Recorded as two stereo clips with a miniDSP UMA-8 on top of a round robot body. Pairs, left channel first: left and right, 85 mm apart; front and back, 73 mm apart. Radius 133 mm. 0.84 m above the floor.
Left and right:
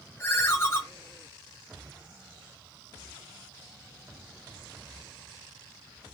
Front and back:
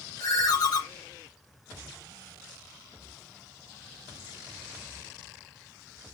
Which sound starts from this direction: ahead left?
A ringtone, at 0.2 s.